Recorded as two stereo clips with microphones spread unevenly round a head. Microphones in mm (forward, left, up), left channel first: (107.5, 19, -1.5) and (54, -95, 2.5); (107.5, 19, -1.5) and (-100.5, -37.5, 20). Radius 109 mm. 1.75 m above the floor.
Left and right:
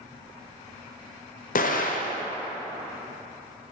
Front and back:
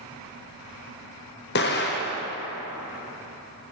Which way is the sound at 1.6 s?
60° left.